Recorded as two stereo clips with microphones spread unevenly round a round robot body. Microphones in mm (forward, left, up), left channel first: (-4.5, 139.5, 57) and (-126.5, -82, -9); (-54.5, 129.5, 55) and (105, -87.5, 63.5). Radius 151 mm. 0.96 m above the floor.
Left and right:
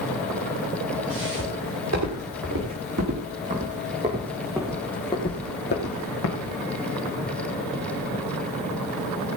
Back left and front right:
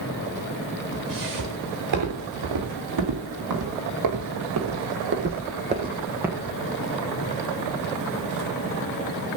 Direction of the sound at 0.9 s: 80° right.